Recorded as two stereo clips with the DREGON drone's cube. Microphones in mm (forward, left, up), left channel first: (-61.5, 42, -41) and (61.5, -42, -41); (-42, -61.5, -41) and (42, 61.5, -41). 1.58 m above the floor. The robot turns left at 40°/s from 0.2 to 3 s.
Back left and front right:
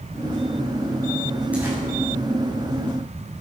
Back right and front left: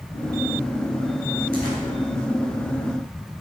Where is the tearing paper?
45° left, 5 m; by 1.8 s 35° left, 5 m.